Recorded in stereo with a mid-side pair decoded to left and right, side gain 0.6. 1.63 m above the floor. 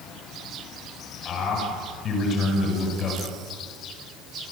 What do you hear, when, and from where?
1.2 s a man speaking: 45° left, 9 m